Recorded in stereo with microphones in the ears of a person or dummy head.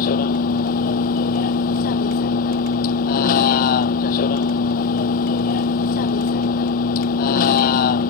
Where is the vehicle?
45° left (ahead or behind).